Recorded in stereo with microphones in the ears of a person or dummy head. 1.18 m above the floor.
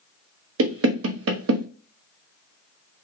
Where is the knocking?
75° right (ahead or behind), 0.6 m.